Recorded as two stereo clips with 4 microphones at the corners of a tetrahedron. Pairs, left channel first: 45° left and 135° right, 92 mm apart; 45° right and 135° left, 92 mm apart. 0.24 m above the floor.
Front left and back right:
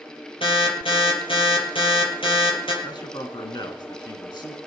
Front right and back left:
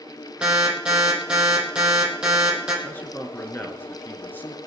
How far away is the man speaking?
About 3 m.